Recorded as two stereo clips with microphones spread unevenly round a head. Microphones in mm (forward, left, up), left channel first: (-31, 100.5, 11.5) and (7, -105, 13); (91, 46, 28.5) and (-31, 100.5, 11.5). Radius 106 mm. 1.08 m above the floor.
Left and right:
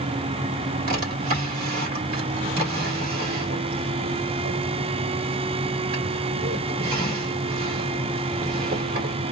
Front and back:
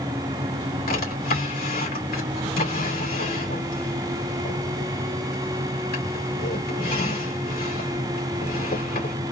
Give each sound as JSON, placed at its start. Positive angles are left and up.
{"t": 0.9, "sound": "a drawer", "azimuth_deg": -30, "distance_m": 1.9}